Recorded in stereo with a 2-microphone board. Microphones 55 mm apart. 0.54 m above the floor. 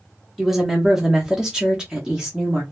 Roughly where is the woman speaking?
Centre.